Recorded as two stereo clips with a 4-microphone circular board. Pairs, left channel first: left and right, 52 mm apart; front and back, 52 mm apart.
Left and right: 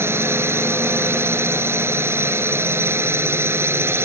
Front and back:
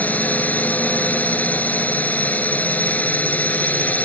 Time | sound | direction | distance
0.0 | a drone | 60° right | ?